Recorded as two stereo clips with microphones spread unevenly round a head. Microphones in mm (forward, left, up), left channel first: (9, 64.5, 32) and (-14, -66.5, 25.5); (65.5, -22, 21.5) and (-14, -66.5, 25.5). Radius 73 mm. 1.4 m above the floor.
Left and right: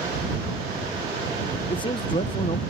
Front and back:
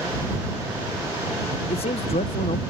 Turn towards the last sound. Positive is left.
turn(degrees=25)